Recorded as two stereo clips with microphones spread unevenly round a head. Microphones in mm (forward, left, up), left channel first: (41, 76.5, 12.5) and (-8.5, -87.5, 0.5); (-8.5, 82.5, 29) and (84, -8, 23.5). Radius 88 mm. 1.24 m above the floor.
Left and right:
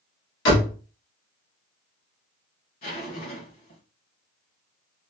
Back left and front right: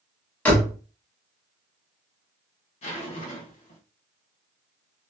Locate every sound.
0.5 s a door slam: 60° left, 1.1 m
2.8 s a zipper: 110° left, 1.4 m